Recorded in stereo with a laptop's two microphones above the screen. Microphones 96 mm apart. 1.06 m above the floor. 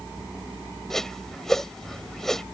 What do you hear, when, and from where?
0.9 s a whoosh: 5° left (ahead or behind)